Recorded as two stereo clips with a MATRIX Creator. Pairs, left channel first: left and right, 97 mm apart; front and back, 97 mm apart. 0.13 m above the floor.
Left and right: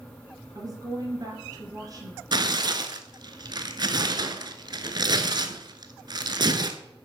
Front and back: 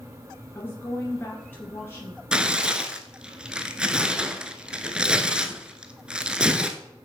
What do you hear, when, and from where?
0.6 s a woman speaking: 60° right, 2.0 m
2.3 s tearing paper: 105° right, 0.7 m